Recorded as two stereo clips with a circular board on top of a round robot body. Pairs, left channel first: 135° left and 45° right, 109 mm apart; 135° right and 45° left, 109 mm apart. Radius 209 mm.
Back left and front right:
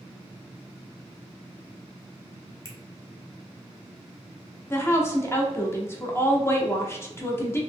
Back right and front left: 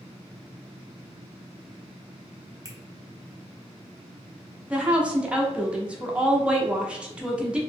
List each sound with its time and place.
2.6 s a finger snap: 90° right, 1.2 m
4.7 s a woman speaking: 110° left, 1.0 m